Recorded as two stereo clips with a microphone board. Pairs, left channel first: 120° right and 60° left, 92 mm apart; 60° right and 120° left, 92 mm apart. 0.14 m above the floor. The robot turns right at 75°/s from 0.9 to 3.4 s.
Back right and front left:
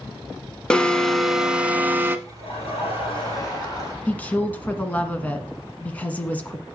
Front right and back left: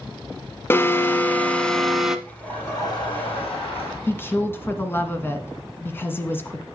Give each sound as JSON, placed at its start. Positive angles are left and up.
{"t": 0.7, "sound": "an alarm", "azimuth_deg": -50, "distance_m": 1.0}
{"t": 2.3, "sound": "laughter", "azimuth_deg": -150, "distance_m": 6.5}
{"t": 4.1, "sound": "a woman speaking", "azimuth_deg": -70, "distance_m": 1.4}